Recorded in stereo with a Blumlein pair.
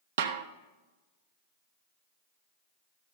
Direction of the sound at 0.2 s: 60° right.